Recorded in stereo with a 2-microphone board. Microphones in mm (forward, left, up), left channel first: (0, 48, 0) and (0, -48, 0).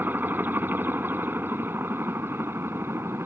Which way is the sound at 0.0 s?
20° right (ahead or behind).